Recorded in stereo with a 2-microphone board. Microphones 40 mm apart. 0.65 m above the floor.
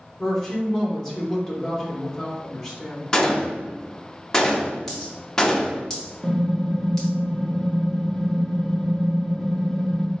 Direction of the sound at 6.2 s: 5° right (ahead or behind).